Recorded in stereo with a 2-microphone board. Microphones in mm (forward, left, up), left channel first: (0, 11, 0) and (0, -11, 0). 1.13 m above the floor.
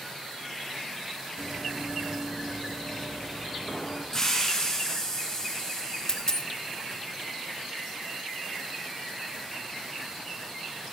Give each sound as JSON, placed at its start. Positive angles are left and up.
{"t": 1.4, "sound": "running footsteps", "side_deg": 25, "distance_m": 2.5}
{"t": 4.1, "sound": "a hiss", "side_deg": 30, "distance_m": 6.0}
{"t": 6.1, "sound": "a dropped coin", "side_deg": 30, "distance_m": 0.7}